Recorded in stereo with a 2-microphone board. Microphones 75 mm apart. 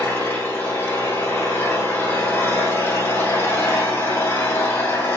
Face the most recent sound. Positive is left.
turn(degrees=25)  # may be behind; listen again after turning